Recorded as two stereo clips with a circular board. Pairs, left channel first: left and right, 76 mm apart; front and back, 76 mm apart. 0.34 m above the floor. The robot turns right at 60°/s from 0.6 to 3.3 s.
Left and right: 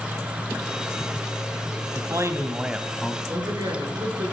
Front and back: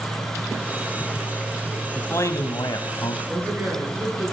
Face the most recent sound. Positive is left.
turn(degrees=-115)